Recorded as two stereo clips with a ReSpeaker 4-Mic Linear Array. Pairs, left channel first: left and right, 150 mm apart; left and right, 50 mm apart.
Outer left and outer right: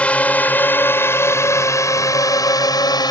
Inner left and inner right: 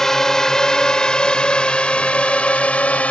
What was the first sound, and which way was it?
A drone, 10° left (ahead or behind).